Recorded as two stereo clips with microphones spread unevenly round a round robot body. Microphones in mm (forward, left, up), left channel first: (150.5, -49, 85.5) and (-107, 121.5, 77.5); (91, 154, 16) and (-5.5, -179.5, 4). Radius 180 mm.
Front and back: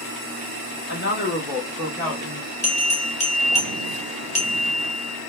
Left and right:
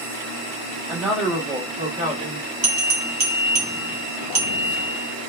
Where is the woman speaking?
15° right, 1.3 m; by 2.5 s 145° right, 1.4 m.